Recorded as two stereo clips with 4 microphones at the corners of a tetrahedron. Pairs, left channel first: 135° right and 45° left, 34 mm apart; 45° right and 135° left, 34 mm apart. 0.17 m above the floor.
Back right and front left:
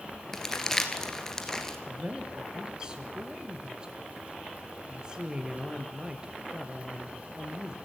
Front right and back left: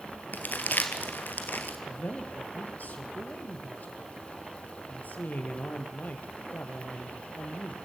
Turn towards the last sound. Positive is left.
turn(degrees=-20)